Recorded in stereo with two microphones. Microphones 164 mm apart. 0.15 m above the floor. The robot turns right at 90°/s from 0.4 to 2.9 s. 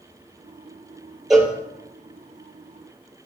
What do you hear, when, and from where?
1.3 s a cowbell: centre (ahead or behind), 1.8 m; by 1.5 s 20° left (ahead or behind), 1.8 m